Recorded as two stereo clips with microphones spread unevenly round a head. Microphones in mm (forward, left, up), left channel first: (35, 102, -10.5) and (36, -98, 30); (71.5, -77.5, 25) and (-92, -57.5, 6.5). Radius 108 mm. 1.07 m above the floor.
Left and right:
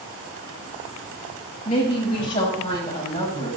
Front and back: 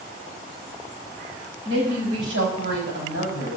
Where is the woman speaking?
145° left, 6.5 m; by 3.6 s 155° left, 7.5 m.